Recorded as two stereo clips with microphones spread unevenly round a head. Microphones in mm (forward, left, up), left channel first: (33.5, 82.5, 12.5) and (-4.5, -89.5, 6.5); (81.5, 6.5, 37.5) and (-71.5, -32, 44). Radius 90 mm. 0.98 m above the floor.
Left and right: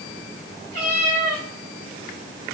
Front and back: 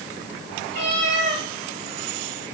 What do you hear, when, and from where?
0.7 s a cat meowing: 145° right, 4 m